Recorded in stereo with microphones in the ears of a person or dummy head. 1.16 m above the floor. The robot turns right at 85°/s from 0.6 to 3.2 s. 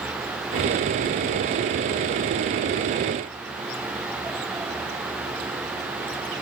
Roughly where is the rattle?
I don't hear a rattle.